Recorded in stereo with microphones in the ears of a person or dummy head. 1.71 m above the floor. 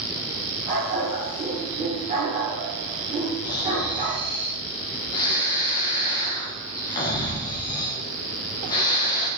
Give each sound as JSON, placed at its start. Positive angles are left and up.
{"t": 0.7, "sound": "a dog barking", "side_deg": -15, "distance_m": 1.4}
{"t": 3.4, "sound": "snoring", "side_deg": 20, "distance_m": 0.9}